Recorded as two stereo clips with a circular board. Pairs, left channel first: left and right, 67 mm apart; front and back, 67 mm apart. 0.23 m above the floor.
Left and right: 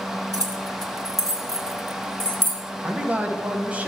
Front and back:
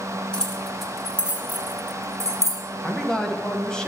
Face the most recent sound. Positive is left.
turn(degrees=-60)